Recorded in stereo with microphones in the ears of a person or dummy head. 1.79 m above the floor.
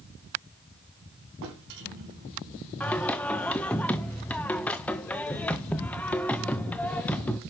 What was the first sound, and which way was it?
A drawer, 65° right (ahead or behind).